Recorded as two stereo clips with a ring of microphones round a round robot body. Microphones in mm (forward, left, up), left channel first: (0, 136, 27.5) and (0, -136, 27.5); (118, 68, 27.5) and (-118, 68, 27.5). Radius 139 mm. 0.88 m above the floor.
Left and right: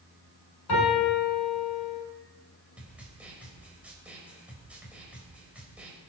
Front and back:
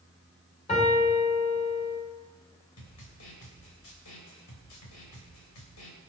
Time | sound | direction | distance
0.7 | a piano | 65° left | 7 m
2.8 | a snare drum | 5° right | 3.5 m